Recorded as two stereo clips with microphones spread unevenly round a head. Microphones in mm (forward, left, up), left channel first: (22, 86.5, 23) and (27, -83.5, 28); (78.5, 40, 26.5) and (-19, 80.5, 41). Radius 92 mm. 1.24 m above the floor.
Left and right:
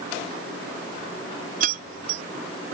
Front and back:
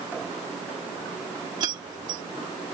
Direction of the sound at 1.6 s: 135° right.